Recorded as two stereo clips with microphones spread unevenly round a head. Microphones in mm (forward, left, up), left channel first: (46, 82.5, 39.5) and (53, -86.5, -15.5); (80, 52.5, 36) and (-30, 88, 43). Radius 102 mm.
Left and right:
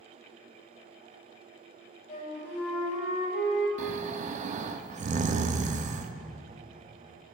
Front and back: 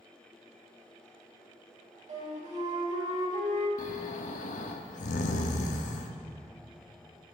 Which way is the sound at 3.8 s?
35° right.